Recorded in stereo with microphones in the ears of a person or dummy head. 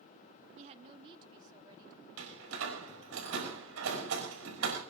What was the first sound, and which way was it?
A woman speaking, 30° right (ahead or behind).